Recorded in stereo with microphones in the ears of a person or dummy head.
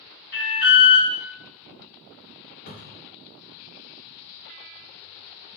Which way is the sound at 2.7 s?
50° left (ahead or behind).